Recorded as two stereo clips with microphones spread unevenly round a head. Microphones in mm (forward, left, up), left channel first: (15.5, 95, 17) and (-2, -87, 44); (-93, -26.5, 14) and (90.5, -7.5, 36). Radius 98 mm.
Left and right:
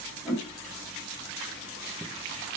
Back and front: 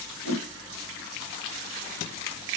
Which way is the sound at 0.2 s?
175° left.